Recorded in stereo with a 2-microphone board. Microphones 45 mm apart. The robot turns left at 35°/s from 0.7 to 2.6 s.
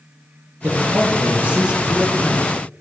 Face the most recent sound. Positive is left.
turn(degrees=170)